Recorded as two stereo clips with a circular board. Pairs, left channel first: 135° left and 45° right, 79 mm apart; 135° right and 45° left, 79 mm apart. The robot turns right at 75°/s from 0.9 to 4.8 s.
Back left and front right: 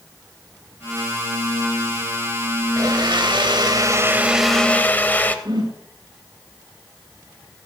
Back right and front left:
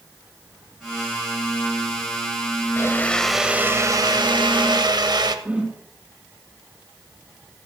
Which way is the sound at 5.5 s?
25° right.